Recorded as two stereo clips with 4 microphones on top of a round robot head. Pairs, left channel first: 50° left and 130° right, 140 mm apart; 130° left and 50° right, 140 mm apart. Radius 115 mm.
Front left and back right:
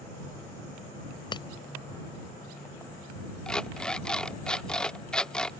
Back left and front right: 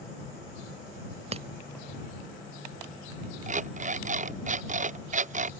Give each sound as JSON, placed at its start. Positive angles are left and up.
{"t": 1.3, "sound": "breaking glass", "azimuth_deg": -5}
{"t": 3.5, "sound": "an alarm clock", "azimuth_deg": -30}